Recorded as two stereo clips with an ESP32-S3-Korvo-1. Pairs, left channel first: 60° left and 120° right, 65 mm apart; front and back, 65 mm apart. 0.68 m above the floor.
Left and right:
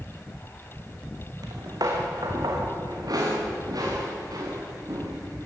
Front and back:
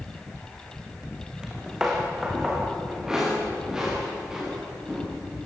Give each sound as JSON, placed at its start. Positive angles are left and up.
{"t": 1.4, "sound": "footsteps", "azimuth_deg": -100, "distance_m": 3.5}